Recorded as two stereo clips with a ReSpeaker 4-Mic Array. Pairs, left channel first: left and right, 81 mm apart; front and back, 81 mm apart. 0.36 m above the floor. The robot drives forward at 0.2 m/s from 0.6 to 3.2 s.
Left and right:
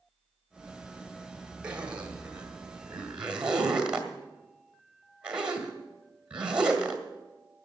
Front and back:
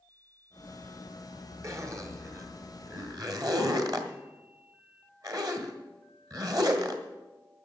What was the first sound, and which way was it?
A zipper, 160° right.